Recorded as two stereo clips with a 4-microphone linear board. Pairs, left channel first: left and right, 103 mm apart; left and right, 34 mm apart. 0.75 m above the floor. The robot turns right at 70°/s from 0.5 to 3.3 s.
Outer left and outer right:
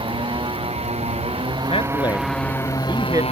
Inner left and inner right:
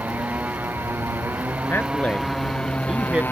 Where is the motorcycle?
125° right; by 3.3 s 70° left.